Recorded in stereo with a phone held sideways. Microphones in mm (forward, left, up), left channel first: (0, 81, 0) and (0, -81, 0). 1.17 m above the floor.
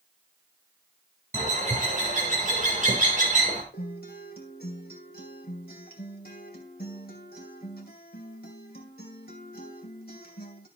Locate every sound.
1.3 s a bird: 50° right (ahead or behind), 3.5 m
3.7 s a guitar: 75° left (ahead or behind), 2.5 m